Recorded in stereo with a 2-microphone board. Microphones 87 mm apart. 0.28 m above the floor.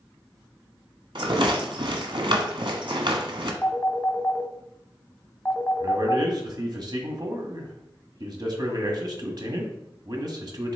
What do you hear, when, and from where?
1.1 s a rattle: 70° right (ahead or behind), 1.1 m
3.6 s a phone ringing: 20° left (ahead or behind), 0.9 m
5.8 s a man speaking: 50° right (ahead or behind), 1.5 m